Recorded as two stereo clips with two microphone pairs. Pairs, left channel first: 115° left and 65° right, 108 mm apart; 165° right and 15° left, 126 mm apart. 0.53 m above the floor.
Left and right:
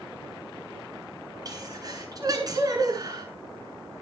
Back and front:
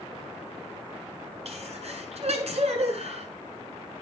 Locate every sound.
1.4 s a sneeze: 10° right, 8 m